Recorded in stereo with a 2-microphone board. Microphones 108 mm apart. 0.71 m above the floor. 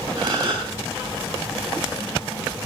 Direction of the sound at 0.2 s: 40° right (ahead or behind).